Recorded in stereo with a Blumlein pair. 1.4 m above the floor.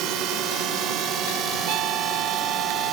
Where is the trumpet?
40° right.